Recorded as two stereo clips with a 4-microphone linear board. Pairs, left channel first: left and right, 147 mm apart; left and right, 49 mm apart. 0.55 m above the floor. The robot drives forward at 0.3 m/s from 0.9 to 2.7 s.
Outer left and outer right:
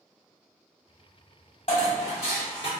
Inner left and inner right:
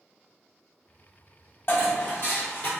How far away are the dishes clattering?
About 0.9 m.